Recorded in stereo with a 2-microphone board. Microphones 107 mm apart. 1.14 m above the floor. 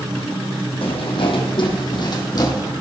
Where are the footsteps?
65° left (ahead or behind), 2.5 m; by 2.7 s 35° left (ahead or behind), 2.5 m.